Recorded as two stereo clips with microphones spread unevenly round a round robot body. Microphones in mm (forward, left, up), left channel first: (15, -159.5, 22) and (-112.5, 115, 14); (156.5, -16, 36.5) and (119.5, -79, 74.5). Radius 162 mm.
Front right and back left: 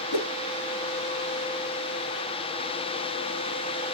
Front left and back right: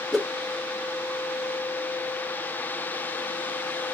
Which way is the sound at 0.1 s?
30° right.